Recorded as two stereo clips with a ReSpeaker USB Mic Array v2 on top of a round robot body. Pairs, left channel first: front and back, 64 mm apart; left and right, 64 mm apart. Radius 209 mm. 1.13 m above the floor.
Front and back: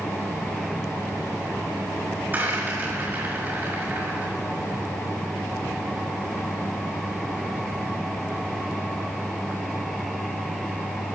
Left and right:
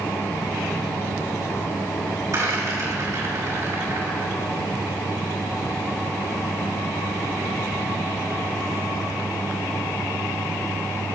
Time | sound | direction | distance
2.3 | a rattle | 120° right | 5 m